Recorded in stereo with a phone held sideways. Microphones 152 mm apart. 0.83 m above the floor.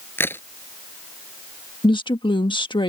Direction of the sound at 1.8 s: 30° left (ahead or behind).